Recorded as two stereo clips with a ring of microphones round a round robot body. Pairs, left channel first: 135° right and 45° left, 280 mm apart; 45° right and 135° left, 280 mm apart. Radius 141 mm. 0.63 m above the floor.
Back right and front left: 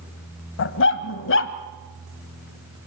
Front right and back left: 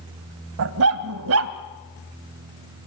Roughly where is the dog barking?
Behind.